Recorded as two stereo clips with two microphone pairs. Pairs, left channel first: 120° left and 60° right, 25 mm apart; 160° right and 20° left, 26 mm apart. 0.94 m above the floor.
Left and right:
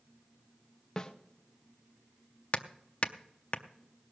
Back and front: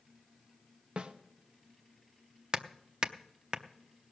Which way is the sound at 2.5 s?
80° left.